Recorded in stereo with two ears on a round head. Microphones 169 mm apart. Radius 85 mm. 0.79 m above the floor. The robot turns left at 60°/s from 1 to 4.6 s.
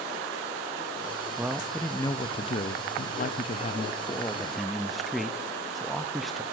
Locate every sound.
1.4 s a man speaking: 165° right, 0.8 m; by 6.4 s straight ahead, 0.8 m